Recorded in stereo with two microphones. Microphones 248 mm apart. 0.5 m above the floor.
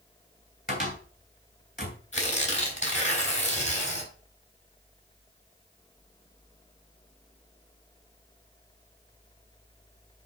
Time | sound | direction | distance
0.7 | a cupboard door | 40° left (ahead or behind) | 3 m
2.1 | tearing paper | 30° left (ahead or behind) | 3.5 m